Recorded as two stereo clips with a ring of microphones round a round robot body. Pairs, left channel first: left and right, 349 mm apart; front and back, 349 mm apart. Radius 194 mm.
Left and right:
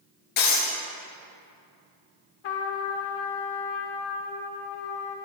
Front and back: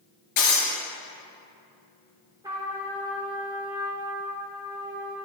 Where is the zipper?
I don't hear a zipper.